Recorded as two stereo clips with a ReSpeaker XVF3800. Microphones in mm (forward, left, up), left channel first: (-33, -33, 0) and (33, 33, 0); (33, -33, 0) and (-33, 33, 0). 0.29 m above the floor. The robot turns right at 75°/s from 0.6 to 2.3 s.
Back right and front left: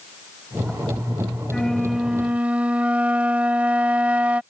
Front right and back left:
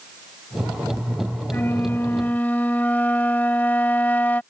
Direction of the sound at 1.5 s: 65° right.